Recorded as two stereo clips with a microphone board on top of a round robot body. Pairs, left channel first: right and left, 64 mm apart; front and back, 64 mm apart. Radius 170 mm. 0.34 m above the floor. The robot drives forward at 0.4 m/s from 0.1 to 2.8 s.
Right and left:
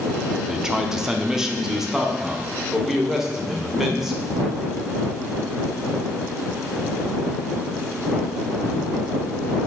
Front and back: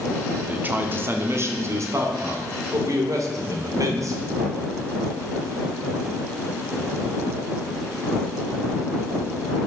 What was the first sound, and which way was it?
A man speaking, 160° left.